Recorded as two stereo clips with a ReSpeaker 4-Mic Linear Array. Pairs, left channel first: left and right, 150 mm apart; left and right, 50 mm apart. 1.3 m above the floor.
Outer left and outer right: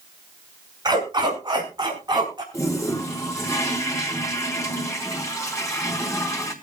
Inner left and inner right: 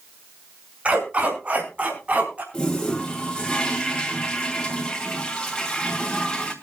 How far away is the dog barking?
About 5.5 m.